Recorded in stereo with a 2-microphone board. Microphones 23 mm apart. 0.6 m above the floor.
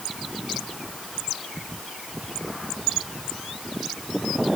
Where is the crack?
No crack in this recording.